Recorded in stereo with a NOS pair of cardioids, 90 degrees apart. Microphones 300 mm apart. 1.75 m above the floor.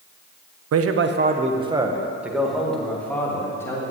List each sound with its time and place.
0.7 s a man speaking: 55° right, 1.2 m; by 3.9 s 10° left, 4 m